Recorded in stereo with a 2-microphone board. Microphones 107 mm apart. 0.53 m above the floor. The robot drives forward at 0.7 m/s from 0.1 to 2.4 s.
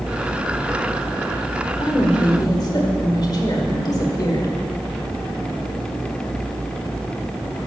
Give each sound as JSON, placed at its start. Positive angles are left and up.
{"t": 1.8, "sound": "a woman speaking", "side_deg": 50, "distance_m": 1.4}